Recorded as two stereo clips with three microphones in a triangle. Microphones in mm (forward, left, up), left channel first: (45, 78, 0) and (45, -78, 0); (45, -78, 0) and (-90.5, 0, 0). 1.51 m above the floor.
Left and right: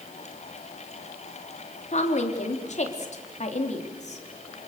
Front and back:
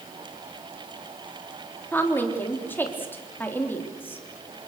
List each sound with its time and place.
1.9 s a woman speaking: 45° left, 3.5 m